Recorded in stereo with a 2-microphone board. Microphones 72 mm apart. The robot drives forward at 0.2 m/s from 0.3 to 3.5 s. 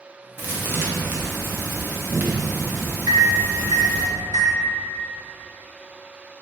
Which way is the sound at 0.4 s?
25° right (ahead or behind).